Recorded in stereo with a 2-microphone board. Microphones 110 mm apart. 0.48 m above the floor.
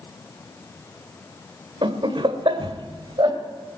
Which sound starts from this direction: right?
Laughter, at 1.8 s.